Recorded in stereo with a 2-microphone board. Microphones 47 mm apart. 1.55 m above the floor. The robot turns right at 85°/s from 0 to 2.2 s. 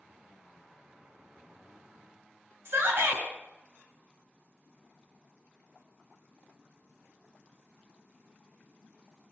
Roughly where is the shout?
Right.